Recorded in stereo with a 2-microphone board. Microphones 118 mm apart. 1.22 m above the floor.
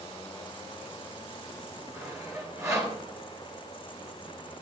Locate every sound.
1.9 s sawing: 25° right (ahead or behind), 5.5 m